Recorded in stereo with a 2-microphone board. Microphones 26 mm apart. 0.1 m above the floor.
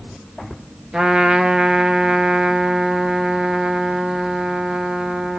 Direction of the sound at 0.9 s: 25° right (ahead or behind).